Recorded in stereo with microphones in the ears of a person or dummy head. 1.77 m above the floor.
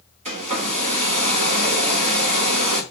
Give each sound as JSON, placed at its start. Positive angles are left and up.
{"t": 0.2, "sound": "a hair dryer", "side_deg": -35, "distance_m": 1.6}